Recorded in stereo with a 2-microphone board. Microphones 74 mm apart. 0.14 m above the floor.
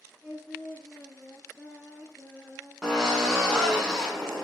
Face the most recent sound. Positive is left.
turn(degrees=10)  # may be behind; listen again after turning